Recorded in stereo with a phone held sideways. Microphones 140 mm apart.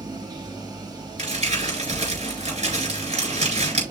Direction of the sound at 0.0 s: 30° right (ahead or behind).